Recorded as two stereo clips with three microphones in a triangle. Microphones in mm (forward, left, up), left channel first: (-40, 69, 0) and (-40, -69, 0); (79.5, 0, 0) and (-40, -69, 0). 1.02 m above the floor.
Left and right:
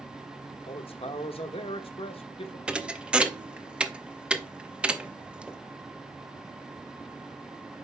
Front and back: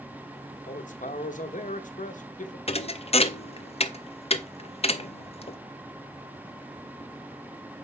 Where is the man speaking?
45° left, 1.0 m.